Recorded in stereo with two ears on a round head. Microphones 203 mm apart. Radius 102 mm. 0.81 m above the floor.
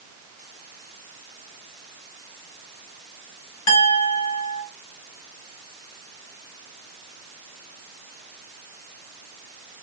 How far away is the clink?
About 1.9 m.